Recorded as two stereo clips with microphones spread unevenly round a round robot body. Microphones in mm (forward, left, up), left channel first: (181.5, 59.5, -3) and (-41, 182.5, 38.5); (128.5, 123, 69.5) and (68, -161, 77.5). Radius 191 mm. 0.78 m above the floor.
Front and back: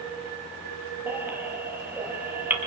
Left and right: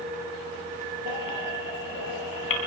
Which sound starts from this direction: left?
A baby crying, at 1.1 s.